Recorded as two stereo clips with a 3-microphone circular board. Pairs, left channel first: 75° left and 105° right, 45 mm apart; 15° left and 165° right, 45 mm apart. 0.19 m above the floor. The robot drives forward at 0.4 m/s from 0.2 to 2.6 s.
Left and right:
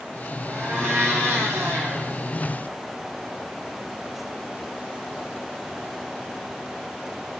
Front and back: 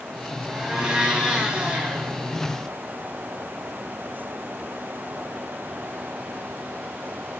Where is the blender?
85° right, 2.5 m; by 2.1 s 100° right, 2.5 m.